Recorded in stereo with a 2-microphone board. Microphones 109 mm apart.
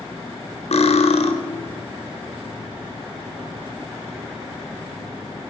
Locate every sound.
0.7 s cutlery clinking: 75° left (ahead or behind), 1.2 m